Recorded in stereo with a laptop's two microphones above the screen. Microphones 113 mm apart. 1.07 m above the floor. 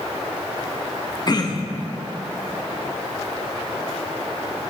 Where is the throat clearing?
40° left (ahead or behind), 0.5 m.